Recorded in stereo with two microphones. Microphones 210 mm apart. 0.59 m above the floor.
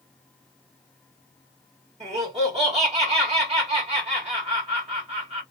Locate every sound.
2.0 s laughter: 30° right (ahead or behind), 1.4 m